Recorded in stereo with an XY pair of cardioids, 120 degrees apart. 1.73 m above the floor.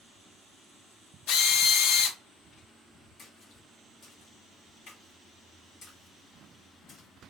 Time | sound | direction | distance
1.3 | a drill | 70° left | 0.6 m
3.2 | a splash | 55° left | 1.6 m